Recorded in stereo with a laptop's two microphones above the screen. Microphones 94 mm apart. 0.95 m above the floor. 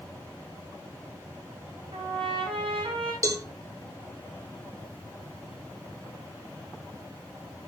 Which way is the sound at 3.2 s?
40° right (ahead or behind).